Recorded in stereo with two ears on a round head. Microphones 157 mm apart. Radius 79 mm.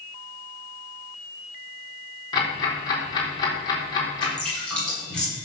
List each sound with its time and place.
2.3 s ticking: 25° left (ahead or behind), 4 m
4.2 s dripping: 5° left (ahead or behind), 7 m